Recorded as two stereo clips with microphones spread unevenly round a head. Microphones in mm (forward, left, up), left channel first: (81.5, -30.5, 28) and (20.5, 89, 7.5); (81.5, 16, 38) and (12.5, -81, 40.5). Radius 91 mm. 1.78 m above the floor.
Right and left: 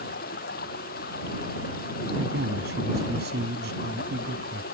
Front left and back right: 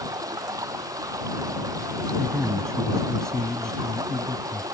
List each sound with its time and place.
0.0 s running water: 65° right
2.2 s a man speaking: 140° left